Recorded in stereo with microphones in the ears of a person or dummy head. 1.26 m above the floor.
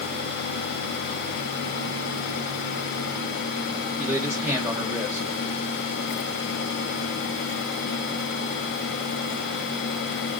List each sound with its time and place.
4.0 s a man speaking: 5° right (ahead or behind), 0.9 m